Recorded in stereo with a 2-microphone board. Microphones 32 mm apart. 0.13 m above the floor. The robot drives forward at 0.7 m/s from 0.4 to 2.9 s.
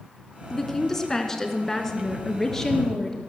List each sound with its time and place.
0.5 s a woman speaking: 15° left (ahead or behind), 1.4 m; by 3.2 s 10° left (ahead or behind), 2.5 m